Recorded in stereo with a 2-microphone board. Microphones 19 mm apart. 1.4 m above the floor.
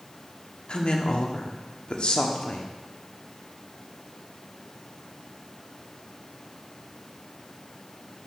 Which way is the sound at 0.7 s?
65° left (ahead or behind).